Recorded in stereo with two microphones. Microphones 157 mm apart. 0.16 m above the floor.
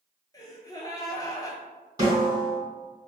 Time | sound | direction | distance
0.3 | a gasp | 25° left (ahead or behind) | 0.5 m
2.0 | a snare drum | 25° right (ahead or behind) | 1.9 m